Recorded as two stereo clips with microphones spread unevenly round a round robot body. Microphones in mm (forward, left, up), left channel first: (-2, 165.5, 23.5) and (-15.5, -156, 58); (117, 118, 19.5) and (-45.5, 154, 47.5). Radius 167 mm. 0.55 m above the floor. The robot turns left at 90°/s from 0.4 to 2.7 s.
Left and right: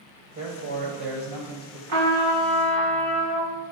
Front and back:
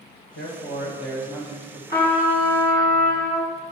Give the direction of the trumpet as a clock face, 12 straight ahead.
4 o'clock.